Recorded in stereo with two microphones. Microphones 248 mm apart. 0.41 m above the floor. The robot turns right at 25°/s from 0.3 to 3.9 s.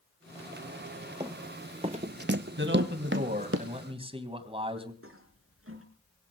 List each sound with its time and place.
1.2 s running footsteps: 20° right (ahead or behind), 1.4 m; by 3.6 s 60° right (ahead or behind), 1.9 m
2.6 s a man speaking: 55° right, 3 m; by 4.9 s 25° right, 3 m
5.0 s a toilet flushing: 60° right (ahead or behind), 4.5 m